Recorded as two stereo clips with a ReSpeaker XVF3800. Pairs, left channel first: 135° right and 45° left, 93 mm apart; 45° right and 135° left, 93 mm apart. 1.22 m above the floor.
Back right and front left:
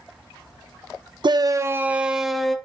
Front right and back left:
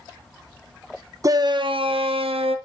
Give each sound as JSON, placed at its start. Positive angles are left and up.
{"t": 1.2, "sound": "a shout", "azimuth_deg": 80, "distance_m": 0.7}